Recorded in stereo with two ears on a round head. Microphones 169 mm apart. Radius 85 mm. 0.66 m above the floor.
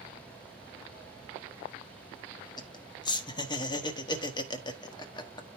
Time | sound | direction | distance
2.6 | laughter | 25° left (ahead or behind) | 1.2 m